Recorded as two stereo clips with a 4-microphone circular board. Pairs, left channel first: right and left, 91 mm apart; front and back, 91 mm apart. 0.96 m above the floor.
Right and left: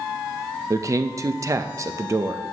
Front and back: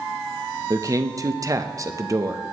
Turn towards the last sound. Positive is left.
turn(degrees=135)